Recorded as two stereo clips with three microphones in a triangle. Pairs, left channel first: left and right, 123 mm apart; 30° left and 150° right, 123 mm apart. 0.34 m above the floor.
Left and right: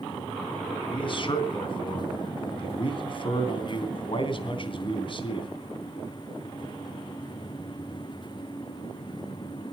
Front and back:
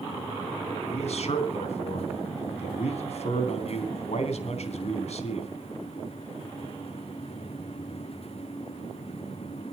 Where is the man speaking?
50° left, 3 m.